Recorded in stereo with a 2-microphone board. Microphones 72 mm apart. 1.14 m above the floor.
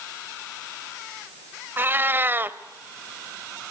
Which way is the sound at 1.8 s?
30° right (ahead or behind).